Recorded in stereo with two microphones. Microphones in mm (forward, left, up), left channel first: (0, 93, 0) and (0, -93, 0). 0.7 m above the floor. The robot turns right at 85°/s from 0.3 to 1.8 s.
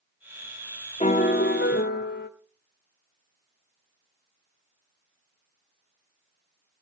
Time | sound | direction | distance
1.0 | a piano | 35° left | 1.2 m